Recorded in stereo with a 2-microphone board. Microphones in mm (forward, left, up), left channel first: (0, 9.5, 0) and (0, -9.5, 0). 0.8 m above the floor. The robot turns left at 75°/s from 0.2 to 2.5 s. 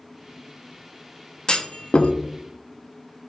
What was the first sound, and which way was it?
A clunk, 40° left (ahead or behind).